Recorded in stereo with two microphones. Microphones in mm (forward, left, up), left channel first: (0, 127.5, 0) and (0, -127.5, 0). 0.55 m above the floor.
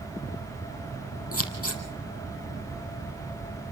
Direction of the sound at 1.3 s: 60° left (ahead or behind).